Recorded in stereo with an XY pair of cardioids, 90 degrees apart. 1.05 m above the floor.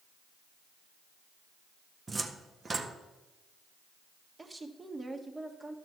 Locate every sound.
2.1 s a cupboard door: 35° right, 1.2 m
4.4 s a woman speaking: 25° right, 1.5 m